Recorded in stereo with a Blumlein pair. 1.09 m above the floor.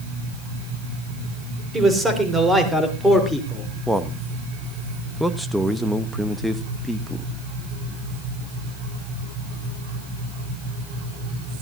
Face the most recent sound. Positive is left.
turn(degrees=0)